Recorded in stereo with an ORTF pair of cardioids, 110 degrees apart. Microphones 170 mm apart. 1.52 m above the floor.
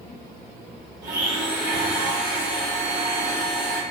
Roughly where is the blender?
Ahead right.